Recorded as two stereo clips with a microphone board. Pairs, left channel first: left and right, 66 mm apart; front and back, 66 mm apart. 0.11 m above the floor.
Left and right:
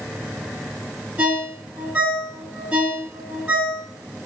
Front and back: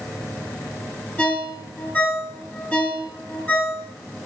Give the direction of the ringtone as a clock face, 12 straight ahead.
2 o'clock.